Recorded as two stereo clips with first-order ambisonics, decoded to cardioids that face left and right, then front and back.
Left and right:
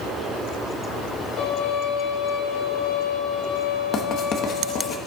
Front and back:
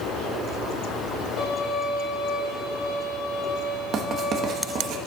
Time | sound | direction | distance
1.4 | a violin | 40° left | 5 m
3.9 | writing | 135° left | 1.3 m